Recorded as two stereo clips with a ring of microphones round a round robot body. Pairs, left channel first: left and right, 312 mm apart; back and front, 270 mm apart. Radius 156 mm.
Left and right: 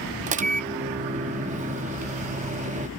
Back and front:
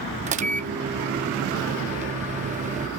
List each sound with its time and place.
0.3 s a microwave: 40° right